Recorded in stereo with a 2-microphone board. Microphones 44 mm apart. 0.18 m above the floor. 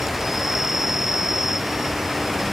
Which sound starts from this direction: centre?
An insect, at 0.0 s.